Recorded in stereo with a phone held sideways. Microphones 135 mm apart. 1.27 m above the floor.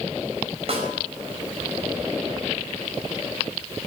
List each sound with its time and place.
0.7 s a snare drum: 50° right (ahead or behind), 4.5 m